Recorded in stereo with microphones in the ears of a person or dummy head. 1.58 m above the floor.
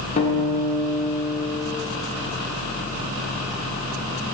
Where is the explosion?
I don't hear an explosion.